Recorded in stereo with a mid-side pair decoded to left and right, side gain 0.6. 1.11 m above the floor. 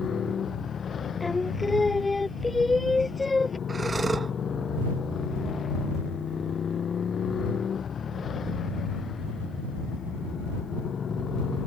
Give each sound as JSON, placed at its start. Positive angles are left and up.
{"t": 0.0, "sound": "a motorcycle", "azimuth_deg": 35}
{"t": 1.2, "sound": "singing", "azimuth_deg": 15}
{"t": 3.7, "sound": "breathing", "azimuth_deg": -20}